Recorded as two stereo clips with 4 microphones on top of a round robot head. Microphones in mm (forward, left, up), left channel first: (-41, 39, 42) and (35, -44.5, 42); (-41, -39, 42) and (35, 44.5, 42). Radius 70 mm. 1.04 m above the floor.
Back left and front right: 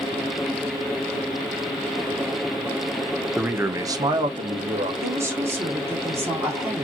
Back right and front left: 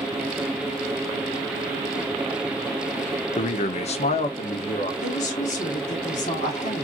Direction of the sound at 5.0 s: 115° right.